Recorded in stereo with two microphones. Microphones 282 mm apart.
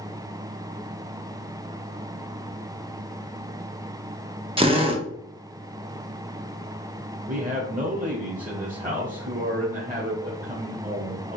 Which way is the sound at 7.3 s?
30° right (ahead or behind).